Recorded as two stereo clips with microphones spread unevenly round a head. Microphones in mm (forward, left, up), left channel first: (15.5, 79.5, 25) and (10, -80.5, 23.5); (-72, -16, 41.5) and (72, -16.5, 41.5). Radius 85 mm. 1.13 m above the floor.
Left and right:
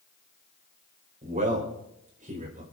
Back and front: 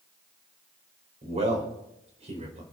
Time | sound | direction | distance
1.2 | a man speaking | 45° right | 5 m